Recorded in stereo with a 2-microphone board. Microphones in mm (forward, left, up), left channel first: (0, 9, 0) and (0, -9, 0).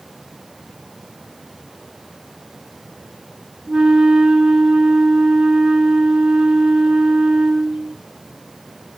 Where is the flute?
75° right (ahead or behind), 1.1 m.